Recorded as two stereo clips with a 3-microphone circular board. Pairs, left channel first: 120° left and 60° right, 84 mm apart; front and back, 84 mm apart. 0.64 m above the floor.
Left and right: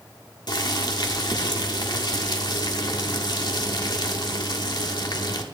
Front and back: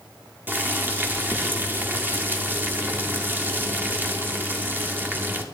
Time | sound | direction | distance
0.5 | boiling | 120° left | 1.1 m